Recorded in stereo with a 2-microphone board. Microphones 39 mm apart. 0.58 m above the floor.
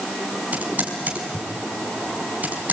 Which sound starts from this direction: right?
Typing on a keyboard, at 0.5 s.